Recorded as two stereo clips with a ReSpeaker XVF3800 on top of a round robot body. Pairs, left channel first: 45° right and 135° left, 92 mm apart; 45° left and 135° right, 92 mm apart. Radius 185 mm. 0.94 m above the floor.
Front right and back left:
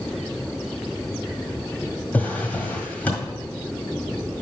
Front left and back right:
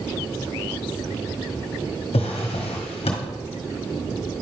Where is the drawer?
30° left, 1.7 m.